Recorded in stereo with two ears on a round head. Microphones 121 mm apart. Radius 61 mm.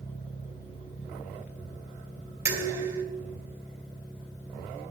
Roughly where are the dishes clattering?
Right.